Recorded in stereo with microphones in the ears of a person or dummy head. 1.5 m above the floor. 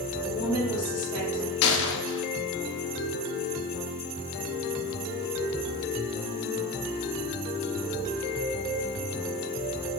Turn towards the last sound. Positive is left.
turn(degrees=70)  # may be behind; listen again after turning